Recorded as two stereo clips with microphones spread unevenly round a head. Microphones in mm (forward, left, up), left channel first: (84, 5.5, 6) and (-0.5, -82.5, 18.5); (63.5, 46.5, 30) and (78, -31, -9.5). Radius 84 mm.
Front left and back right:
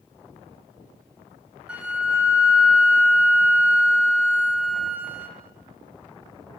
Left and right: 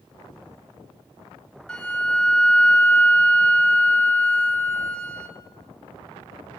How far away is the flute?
About 1.1 m.